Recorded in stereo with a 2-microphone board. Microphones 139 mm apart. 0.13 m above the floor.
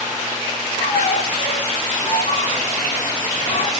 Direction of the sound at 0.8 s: 45° left (ahead or behind).